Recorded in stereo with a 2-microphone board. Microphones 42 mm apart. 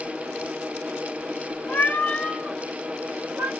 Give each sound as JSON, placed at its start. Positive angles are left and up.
{"t": 1.7, "sound": "a cat meowing", "side_deg": 45, "distance_m": 0.9}